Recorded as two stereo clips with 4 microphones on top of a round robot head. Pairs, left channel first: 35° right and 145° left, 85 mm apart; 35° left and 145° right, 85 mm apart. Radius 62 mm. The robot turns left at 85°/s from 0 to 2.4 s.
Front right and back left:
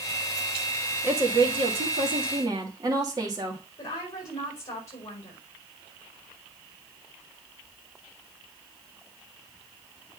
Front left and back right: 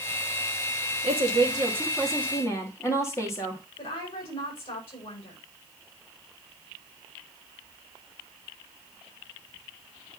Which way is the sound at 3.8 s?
20° left.